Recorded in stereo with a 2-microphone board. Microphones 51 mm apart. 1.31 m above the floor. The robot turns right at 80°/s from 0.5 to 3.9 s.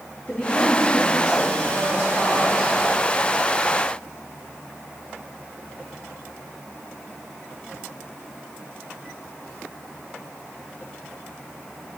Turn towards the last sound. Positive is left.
turn(degrees=-60)